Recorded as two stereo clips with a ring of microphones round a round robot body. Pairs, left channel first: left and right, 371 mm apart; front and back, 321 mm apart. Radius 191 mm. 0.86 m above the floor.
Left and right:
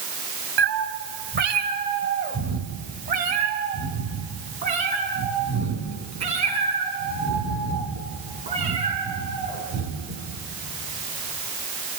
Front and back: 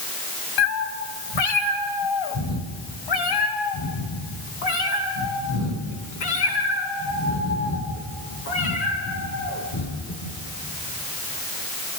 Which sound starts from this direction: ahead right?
A cat meowing, at 0.6 s.